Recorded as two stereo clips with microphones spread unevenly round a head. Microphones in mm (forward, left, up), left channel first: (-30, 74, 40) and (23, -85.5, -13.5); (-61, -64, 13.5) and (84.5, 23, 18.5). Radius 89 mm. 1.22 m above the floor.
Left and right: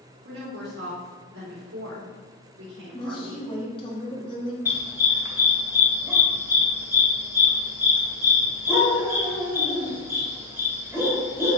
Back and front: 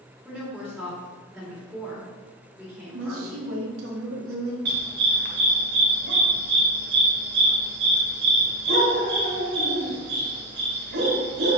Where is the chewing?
I don't hear chewing.